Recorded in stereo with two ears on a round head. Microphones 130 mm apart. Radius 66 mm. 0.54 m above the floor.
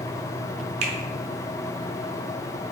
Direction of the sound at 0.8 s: 45° right (ahead or behind).